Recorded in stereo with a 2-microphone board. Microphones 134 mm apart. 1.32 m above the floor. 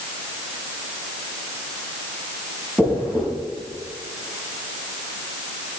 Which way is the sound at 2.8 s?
10° right (ahead or behind).